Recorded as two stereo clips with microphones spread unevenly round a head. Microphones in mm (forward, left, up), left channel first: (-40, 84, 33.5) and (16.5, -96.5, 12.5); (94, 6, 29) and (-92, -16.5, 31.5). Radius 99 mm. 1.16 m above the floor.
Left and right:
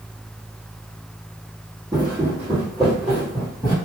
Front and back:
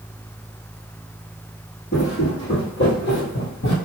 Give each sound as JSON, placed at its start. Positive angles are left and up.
{"t": 1.9, "sound": "footsteps", "azimuth_deg": 0, "distance_m": 1.5}